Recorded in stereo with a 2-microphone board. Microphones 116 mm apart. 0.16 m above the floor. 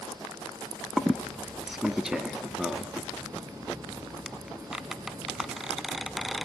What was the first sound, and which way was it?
A squeak, 5° right (ahead or behind).